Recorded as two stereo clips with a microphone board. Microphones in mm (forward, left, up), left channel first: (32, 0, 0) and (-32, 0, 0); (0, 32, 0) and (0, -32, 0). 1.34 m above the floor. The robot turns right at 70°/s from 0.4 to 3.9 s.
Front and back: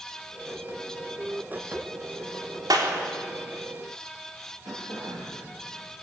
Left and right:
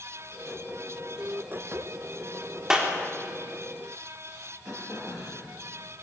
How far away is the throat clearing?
About 7 m.